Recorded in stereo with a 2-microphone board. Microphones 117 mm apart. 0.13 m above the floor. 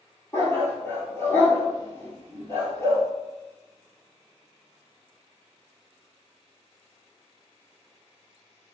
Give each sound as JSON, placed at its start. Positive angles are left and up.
{"t": 0.3, "sound": "a dog barking", "side_deg": 20, "distance_m": 1.4}